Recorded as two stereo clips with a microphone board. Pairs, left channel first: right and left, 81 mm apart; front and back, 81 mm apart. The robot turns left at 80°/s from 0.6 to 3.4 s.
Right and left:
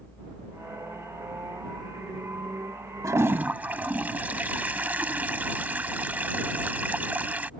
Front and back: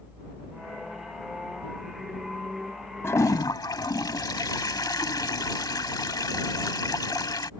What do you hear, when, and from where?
3.0 s a toilet flushing: 50° left; by 7.5 s 25° left